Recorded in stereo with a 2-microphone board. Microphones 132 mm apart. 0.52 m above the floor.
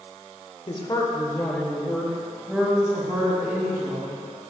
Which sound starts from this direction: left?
A woman speaking, at 0.7 s.